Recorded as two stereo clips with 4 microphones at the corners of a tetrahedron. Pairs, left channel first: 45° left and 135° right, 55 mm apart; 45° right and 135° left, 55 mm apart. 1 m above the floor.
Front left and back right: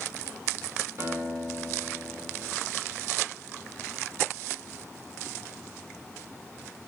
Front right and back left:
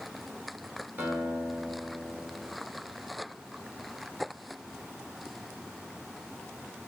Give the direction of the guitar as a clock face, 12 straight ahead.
5 o'clock.